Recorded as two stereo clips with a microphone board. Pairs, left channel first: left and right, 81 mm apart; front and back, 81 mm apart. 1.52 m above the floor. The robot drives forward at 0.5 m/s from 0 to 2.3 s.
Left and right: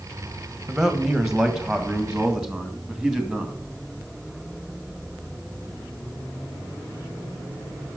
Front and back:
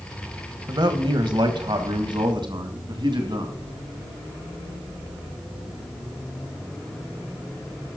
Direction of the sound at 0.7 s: 170° right.